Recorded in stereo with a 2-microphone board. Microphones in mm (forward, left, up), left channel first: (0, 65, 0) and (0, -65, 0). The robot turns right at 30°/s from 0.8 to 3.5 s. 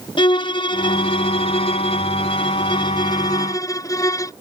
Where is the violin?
60° left; by 4.3 s 140° left.